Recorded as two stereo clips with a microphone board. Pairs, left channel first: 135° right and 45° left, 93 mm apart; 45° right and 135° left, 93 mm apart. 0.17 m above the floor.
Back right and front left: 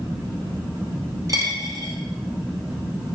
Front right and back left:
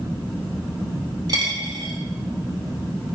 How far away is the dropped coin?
About 1.8 m.